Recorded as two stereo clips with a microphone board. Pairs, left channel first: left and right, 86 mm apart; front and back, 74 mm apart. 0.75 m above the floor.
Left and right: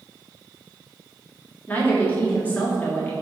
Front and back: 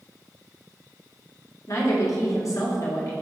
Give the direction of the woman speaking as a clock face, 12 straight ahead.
11 o'clock.